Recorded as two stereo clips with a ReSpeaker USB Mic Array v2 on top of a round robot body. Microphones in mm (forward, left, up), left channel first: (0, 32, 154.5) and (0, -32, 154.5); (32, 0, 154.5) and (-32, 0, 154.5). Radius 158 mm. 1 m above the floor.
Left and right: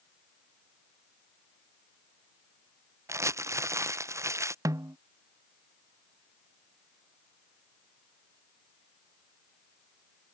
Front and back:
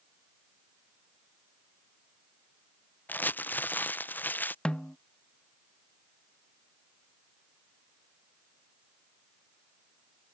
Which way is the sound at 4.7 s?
75° right.